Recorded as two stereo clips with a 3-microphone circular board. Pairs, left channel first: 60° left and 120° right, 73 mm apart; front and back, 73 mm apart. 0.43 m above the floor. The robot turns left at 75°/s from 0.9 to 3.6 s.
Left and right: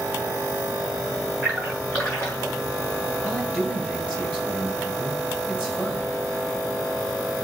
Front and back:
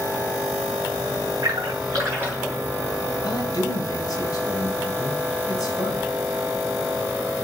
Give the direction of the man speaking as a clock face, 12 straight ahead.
11 o'clock.